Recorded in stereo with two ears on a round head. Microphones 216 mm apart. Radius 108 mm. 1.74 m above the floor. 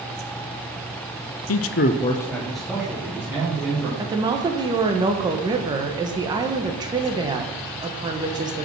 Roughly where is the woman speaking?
Centre.